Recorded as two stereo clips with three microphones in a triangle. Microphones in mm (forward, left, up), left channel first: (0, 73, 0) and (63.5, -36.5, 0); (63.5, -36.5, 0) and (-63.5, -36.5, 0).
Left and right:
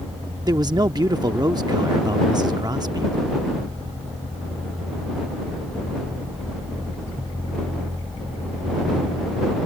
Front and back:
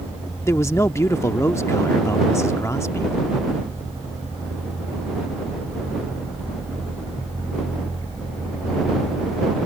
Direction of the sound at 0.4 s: 45° right.